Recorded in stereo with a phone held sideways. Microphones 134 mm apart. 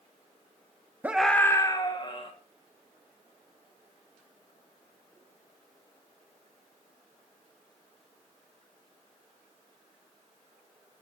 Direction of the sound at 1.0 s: 15° right (ahead or behind).